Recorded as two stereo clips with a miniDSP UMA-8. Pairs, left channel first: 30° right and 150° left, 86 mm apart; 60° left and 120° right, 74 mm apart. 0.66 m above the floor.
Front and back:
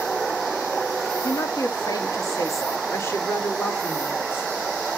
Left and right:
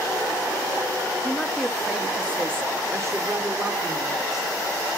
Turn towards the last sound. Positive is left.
turn(degrees=-95)